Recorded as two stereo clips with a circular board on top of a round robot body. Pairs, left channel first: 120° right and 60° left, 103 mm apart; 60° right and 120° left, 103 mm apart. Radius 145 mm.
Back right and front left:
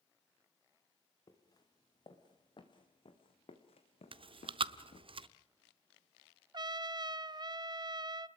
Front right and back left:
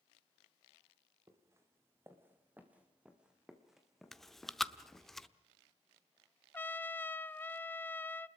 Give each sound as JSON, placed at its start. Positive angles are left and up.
{"t": 1.3, "sound": "footsteps", "azimuth_deg": -175, "distance_m": 3.0}
{"t": 4.1, "sound": "chewing", "azimuth_deg": 30, "distance_m": 0.9}
{"t": 6.5, "sound": "a trumpet", "azimuth_deg": 10, "distance_m": 0.8}